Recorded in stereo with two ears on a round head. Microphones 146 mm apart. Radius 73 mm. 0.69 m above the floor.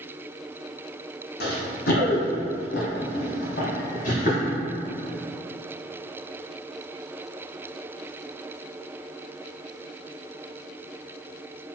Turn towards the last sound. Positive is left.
turn(degrees=40)  # may be behind; listen again after turning